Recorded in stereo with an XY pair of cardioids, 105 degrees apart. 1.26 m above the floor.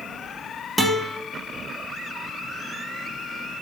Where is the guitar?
Straight ahead, 2.5 m.